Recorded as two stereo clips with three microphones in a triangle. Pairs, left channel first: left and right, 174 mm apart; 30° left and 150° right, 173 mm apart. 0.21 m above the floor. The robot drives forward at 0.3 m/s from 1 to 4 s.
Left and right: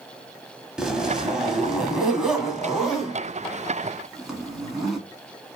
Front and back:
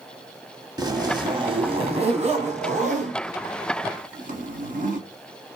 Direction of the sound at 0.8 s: 170° right.